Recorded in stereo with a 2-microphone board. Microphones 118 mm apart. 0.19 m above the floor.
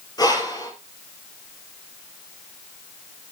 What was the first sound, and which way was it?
Breathing, 35° left (ahead or behind).